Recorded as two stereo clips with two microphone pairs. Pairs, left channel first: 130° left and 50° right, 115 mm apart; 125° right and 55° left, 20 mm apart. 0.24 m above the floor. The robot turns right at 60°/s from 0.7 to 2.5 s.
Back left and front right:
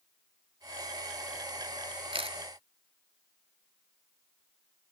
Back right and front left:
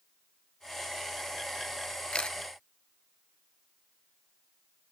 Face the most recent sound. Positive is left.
turn(degrees=-65)